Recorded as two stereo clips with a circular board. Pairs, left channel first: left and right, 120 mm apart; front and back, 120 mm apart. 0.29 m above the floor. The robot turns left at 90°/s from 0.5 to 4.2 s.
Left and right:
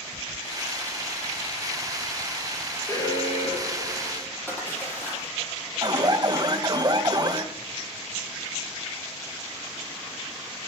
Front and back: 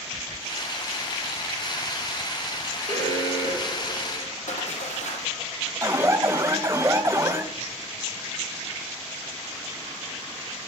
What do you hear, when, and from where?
2.9 s an alarm: 160° left, 5.5 m; by 4.3 s 40° left, 5.5 m
4.5 s a splash: 15° left, 8 m
5.8 s an alarm: 125° right, 1.9 m